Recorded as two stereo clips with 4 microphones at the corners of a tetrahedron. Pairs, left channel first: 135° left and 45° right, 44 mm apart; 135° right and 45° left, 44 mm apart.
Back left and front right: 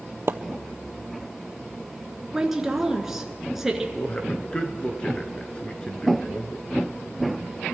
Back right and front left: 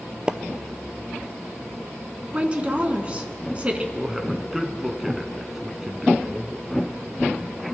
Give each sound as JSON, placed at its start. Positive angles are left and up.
{"t": 0.3, "sound": "a splash", "azimuth_deg": -25, "distance_m": 0.5}
{"t": 2.3, "sound": "a woman speaking", "azimuth_deg": 30, "distance_m": 1.1}
{"t": 4.0, "sound": "a man speaking", "azimuth_deg": 125, "distance_m": 1.1}